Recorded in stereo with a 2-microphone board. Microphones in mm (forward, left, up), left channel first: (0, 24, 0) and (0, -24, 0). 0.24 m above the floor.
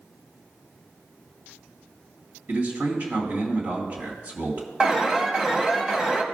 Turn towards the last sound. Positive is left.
turn(degrees=-20)  # may be behind; listen again after turning